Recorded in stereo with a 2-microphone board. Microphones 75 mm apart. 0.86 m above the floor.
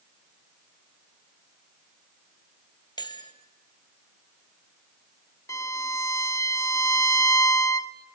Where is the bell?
80° left, 2.5 m.